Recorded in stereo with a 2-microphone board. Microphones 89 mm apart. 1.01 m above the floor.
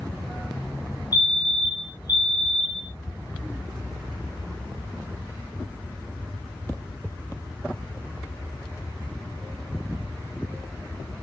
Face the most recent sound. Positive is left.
turn(degrees=45)  # may be behind; listen again after turning